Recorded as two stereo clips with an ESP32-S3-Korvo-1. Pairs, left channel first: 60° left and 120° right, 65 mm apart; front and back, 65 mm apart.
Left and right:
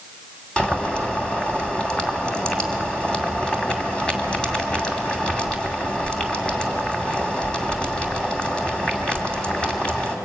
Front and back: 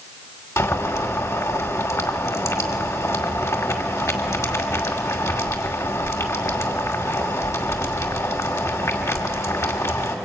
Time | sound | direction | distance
0.6 | boiling | 10° right | 2.5 m